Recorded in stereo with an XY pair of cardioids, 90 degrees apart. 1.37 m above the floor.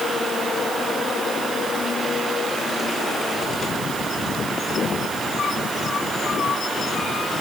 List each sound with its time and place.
Only background noise.